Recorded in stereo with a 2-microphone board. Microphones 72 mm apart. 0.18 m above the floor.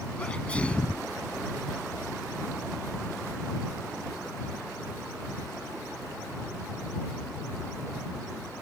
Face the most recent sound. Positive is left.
turn(degrees=15)  # may be behind; listen again after turning